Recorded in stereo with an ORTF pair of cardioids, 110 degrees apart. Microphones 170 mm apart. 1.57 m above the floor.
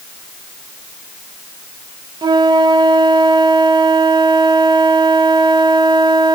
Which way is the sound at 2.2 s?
25° right.